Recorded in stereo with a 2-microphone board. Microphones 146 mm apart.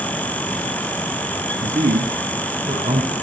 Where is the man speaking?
60° right (ahead or behind), 4.5 m; by 3.1 s 70° right (ahead or behind), 5 m.